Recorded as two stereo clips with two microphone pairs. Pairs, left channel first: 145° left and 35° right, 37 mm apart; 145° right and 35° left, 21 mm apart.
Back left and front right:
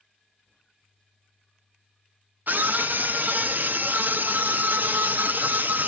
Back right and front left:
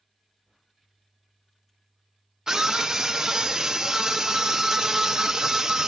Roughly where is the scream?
Ahead.